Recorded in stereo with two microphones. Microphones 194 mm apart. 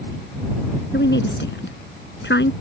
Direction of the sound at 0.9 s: 65° left (ahead or behind).